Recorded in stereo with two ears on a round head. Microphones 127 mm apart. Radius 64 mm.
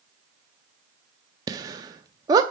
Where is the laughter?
25° right (ahead or behind), 0.7 m.